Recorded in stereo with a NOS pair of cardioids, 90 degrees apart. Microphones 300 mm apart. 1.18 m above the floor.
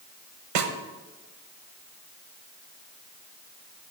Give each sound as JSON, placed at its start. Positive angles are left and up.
{"t": 0.6, "sound": "a snare drum", "azimuth_deg": -65, "distance_m": 1.0}